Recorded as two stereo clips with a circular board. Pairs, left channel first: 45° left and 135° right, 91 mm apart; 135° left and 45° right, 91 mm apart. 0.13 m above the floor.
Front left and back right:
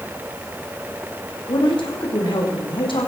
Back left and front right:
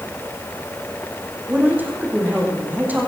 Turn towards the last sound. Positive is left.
turn(degrees=25)